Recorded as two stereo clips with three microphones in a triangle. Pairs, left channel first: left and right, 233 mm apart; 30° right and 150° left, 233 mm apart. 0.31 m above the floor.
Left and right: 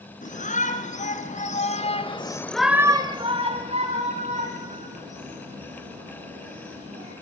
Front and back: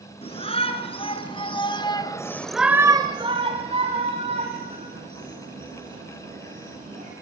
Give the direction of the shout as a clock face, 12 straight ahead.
11 o'clock.